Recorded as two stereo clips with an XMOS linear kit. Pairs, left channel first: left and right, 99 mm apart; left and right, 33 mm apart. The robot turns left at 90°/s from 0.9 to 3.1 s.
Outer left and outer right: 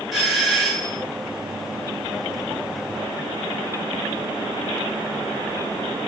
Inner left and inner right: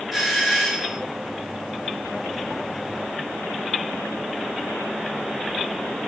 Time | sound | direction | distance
0.1 | a doorbell | 5° right (ahead or behind) | 4.5 m